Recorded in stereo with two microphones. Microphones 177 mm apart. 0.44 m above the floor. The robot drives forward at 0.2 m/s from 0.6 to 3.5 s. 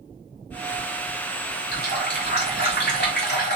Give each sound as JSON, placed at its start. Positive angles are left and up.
{"t": 1.7, "sound": "a running tap", "side_deg": 75, "distance_m": 1.9}